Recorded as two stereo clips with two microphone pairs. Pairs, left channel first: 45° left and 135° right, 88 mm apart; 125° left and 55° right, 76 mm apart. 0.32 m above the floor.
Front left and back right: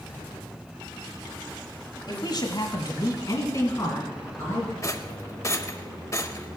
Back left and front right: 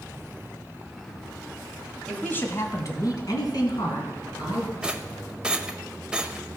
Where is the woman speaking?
50° left, 1.5 m; by 4.7 s 110° left, 4.5 m.